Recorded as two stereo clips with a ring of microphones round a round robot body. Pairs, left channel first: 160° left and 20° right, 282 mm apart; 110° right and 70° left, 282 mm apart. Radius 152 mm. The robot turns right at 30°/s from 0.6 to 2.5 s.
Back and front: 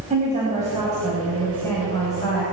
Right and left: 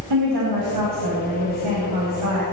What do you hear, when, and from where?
0.1 s a woman speaking: 45° left, 4.5 m; by 2.4 s 100° left, 4.5 m